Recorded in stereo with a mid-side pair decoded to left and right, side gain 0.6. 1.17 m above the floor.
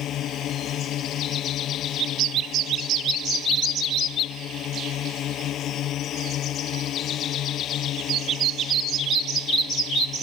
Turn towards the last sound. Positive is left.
turn(degrees=55)